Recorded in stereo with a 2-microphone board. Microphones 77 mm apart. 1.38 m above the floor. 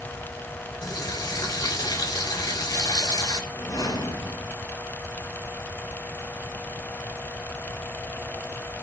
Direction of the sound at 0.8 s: 70° left (ahead or behind).